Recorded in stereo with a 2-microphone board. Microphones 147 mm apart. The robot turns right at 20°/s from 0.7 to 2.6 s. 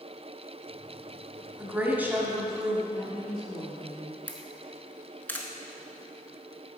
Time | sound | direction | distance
1.6 | a woman speaking | 15° right (ahead or behind) | 1.1 m
2.9 | a woman speaking | 30° left (ahead or behind) | 1.5 m
4.3 | a camera shutter | 10° left (ahead or behind) | 0.7 m